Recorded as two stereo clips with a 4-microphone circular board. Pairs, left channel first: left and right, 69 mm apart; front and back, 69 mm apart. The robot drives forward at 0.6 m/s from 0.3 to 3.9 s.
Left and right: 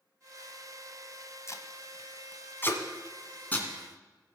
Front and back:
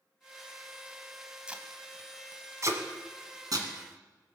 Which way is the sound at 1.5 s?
110° left.